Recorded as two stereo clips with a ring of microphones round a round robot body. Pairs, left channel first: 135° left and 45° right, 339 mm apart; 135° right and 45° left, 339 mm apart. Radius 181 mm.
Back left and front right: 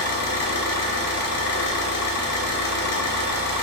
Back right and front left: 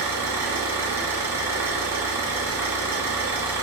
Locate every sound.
0.0 s an engine running: 125° left, 1.0 m